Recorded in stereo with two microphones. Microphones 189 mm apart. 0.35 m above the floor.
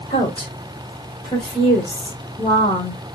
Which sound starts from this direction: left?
A woman speaking, at 0.1 s.